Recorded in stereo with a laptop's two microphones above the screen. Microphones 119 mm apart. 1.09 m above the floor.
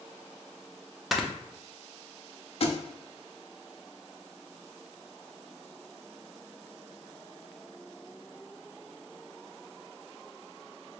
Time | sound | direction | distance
1.1 | snoring | centre (ahead or behind) | 0.7 m
2.6 | a thud | 55° left (ahead or behind) | 0.6 m